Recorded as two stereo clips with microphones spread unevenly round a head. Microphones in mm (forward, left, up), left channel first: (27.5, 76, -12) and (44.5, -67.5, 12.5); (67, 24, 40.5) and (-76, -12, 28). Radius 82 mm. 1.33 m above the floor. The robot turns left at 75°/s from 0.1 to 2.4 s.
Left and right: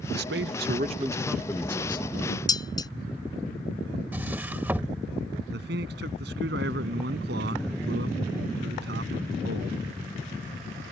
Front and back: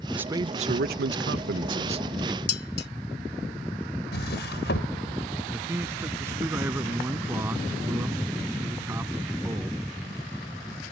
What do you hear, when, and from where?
0.1 s a man speaking: 80° right; by 2.4 s 110° left
2.5 s dishes clattering: 30° left
4.1 s a drawer: 10° right
5.5 s a man speaking: 90° right